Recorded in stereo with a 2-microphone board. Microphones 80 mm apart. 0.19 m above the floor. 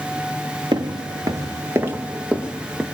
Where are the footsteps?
65° right (ahead or behind), 1.6 m; by 2.8 s centre (ahead or behind), 1.9 m.